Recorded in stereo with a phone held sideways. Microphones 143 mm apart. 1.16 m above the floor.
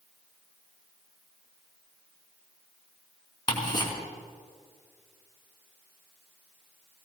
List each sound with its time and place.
3.5 s ticking: 30° left (ahead or behind), 3.5 m